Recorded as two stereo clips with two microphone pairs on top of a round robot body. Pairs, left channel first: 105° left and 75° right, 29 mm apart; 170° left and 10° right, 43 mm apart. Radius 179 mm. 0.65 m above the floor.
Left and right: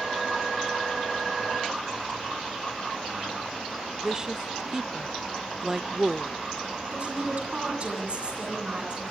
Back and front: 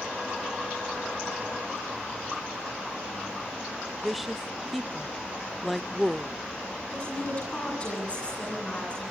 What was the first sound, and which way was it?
A woman speaking, 60° right.